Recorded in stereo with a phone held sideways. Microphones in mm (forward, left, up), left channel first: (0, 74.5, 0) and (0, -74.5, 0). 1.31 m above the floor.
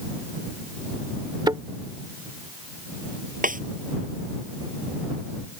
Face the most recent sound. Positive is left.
turn(degrees=-65)  # may be behind; listen again after turning